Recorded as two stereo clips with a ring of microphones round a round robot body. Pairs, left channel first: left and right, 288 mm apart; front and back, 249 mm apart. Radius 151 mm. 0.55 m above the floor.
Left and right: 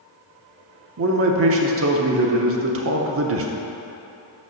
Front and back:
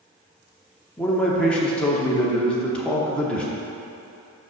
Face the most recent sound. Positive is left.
turn(degrees=-85)